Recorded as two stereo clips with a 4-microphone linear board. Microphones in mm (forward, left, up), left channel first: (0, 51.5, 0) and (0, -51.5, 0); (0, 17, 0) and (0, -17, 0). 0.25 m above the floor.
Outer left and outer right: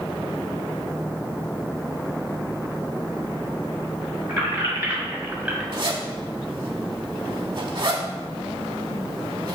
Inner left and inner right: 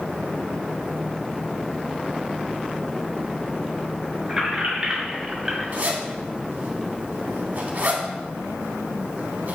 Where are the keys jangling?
20° right (ahead or behind), 1.5 m; by 5.6 s 10° right (ahead or behind), 0.9 m.